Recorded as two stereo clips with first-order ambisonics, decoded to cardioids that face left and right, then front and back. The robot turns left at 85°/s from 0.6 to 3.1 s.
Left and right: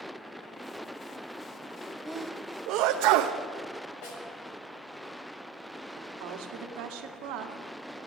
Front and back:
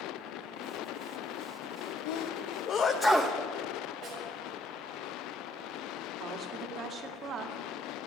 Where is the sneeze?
Straight ahead, 0.8 m; by 3.4 s 90° right, 0.8 m.